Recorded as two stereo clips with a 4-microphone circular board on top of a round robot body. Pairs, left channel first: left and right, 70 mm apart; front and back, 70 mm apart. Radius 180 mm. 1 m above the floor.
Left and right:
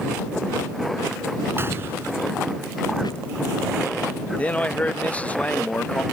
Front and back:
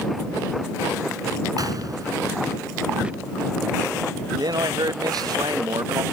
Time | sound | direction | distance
1.6 | a gunshot | 145° right | ?
3.0 | a squeak | 105° left | ?
4.4 | a man speaking | 160° left | ?